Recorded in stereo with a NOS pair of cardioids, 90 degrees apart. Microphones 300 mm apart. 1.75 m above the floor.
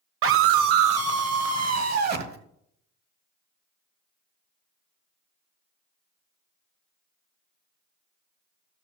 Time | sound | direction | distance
0.2 | a scream | 45° right | 1.1 m